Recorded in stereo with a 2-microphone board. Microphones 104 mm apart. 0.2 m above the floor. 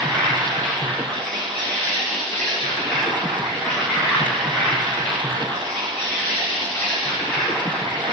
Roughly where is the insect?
Centre.